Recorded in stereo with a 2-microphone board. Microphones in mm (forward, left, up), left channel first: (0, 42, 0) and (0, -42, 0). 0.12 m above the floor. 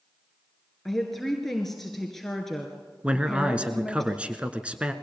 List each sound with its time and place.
0.8 s a woman speaking: 5° left (ahead or behind), 1.8 m
3.0 s a man speaking: 15° right (ahead or behind), 1.2 m